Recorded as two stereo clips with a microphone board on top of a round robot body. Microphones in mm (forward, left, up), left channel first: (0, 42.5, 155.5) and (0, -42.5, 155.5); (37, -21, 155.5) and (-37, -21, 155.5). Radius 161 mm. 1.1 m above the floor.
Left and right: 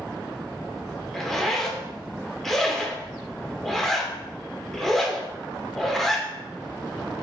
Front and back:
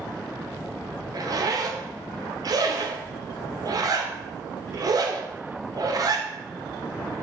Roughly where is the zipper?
Behind.